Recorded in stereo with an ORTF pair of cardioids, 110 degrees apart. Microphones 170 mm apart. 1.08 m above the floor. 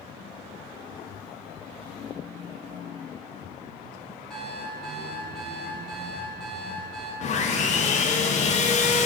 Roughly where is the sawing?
Ahead left.